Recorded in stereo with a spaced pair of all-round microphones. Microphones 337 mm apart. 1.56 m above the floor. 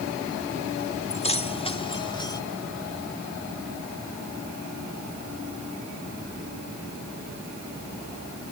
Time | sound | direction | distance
1.1 | keys jangling | 20° left (ahead or behind) | ?